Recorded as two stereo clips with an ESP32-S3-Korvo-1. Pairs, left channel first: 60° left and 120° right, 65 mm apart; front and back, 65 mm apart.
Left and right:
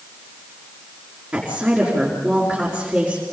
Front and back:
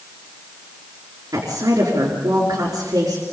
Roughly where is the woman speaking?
Behind.